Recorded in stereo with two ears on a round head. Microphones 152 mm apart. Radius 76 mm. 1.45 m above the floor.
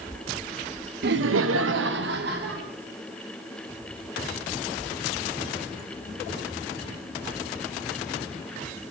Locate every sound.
1.0 s laughter: 60° right (ahead or behind), 0.7 m